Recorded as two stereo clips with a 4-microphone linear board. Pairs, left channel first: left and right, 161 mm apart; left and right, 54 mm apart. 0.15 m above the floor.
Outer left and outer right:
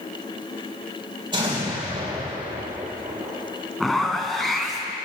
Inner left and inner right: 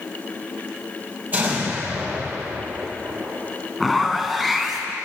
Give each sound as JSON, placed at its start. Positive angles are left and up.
{"t": 1.3, "sound": "an explosion", "side_deg": -30, "distance_m": 2.5}
{"t": 3.8, "sound": "a zipper", "side_deg": 0, "distance_m": 0.8}